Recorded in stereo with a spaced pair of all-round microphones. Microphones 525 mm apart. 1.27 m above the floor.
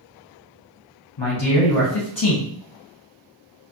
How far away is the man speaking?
About 0.9 m.